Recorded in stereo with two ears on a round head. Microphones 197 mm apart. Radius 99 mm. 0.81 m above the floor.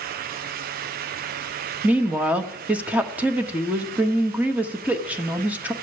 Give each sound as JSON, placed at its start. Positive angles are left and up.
{"t": 1.8, "sound": "a woman speaking", "side_deg": -5, "distance_m": 1.0}